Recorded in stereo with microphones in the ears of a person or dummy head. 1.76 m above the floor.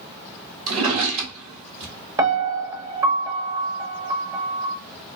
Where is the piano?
20° right (ahead or behind), 0.7 m.